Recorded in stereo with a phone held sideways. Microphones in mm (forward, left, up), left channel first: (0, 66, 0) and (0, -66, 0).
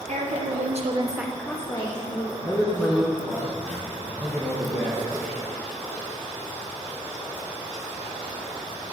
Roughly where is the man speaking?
Centre.